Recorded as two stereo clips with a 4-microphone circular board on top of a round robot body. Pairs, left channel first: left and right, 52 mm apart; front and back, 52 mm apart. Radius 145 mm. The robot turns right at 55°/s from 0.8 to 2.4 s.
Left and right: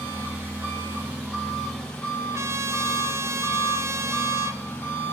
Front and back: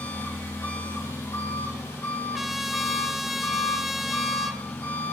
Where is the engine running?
45° right, 3 m; by 5.1 s 40° left, 3 m.